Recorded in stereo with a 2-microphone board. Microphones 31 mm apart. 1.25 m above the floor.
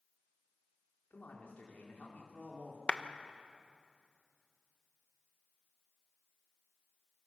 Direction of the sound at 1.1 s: 55° left (ahead or behind).